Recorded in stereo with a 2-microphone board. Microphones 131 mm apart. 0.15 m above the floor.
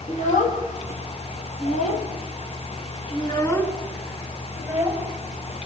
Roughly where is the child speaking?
Left.